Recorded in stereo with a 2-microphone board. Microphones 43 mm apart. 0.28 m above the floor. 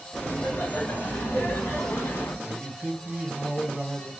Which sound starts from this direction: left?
Laughter, at 0.1 s.